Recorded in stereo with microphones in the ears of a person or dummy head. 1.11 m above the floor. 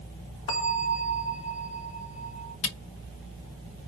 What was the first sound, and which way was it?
A bell, 40° left (ahead or behind).